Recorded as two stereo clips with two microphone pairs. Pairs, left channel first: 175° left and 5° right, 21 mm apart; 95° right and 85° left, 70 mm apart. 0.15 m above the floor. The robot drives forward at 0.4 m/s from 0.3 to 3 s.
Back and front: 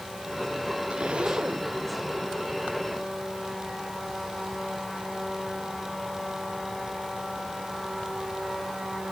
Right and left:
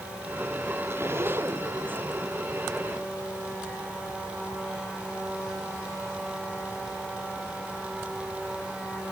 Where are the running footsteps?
I don't hear running footsteps.